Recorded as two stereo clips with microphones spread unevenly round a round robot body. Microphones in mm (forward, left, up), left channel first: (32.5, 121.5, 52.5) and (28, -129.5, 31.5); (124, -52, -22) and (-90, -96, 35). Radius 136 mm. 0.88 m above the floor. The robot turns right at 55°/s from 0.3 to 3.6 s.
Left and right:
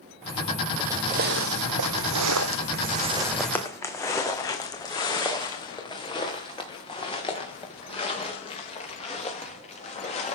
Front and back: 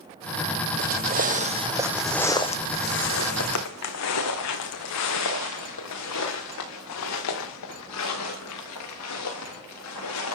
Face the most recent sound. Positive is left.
turn(degrees=25)